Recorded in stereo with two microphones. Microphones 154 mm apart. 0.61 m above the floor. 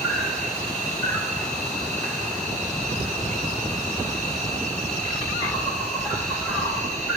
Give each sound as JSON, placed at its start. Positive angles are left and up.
{"t": 0.0, "sound": "an insect", "side_deg": 5, "distance_m": 4.5}